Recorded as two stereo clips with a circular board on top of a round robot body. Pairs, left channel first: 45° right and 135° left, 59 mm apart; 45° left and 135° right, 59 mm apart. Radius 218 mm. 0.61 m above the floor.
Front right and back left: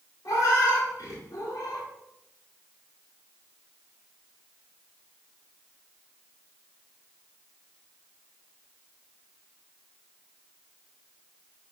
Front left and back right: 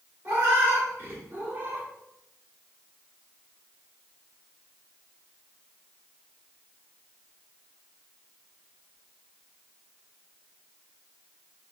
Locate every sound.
0.2 s a cat meowing: 80° right, 1.6 m; by 1.9 s 70° right, 0.6 m